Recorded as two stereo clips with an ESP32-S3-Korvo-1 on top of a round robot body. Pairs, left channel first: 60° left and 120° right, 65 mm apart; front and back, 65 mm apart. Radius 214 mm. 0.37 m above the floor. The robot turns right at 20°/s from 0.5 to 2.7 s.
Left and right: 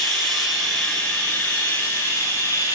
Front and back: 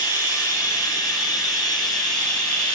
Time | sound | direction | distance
0.0 | running water | 25° right | 3.5 m